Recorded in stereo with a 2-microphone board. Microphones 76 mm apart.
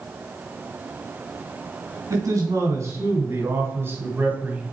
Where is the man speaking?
50° right (ahead or behind), 3 m; by 4.6 s 20° right (ahead or behind), 1.9 m.